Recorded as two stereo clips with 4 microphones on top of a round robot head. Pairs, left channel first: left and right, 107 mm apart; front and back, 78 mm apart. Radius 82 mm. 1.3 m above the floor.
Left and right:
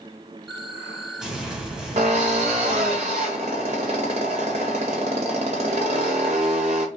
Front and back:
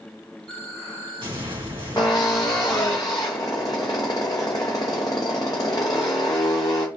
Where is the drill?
60° right, 0.7 m.